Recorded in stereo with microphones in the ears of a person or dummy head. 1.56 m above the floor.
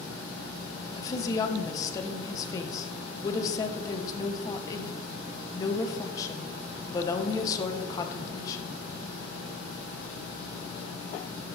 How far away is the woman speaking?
About 1.1 m.